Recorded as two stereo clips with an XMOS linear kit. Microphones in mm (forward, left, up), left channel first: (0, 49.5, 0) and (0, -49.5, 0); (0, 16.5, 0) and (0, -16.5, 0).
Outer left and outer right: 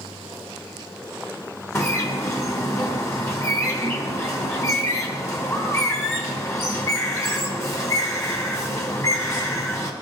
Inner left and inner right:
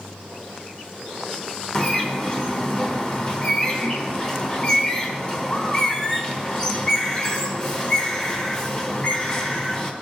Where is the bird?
30° left (ahead or behind), 1.1 m.